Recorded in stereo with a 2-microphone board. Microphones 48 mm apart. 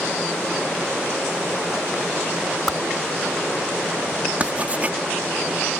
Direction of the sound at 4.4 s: 30° right (ahead or behind).